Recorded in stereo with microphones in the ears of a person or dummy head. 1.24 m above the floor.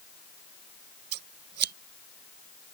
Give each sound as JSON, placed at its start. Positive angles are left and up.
{"t": 1.1, "sound": "scissors", "side_deg": -60}